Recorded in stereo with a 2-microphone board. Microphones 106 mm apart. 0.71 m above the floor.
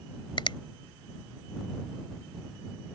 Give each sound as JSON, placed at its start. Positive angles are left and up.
{"t": 0.4, "sound": "a finger snap", "side_deg": 50}